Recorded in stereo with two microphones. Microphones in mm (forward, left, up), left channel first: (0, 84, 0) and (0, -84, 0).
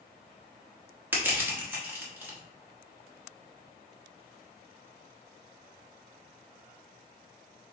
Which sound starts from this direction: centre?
Crushing, at 1.1 s.